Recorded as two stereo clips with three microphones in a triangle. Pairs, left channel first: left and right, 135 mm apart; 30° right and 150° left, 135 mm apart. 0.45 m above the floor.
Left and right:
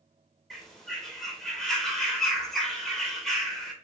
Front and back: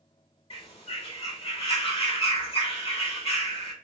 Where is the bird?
5° left, 0.7 m.